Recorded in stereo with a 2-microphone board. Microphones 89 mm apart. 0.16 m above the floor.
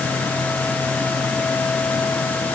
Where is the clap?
I don't hear a clap.